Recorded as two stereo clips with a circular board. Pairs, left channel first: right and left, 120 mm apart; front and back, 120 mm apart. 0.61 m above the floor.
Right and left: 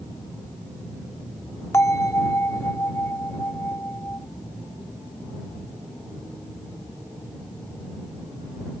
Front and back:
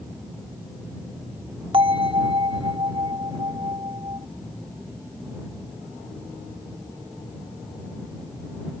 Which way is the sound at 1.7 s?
150° right.